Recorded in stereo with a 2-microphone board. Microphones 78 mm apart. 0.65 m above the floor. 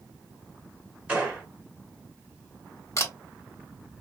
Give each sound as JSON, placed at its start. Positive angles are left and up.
{"t": 1.1, "sound": "a gunshot", "side_deg": -20, "distance_m": 2.0}
{"t": 3.0, "sound": "a camera shutter", "side_deg": 40, "distance_m": 1.2}